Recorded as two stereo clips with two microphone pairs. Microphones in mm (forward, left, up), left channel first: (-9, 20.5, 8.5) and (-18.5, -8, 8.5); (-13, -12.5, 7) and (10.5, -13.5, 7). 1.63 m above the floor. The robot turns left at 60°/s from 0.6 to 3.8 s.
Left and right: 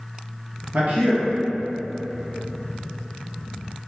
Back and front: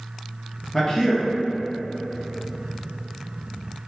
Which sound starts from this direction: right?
A man speaking, at 0.7 s.